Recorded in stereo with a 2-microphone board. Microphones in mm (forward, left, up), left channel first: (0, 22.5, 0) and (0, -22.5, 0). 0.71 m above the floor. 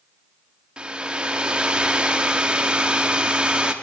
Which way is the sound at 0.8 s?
25° right (ahead or behind).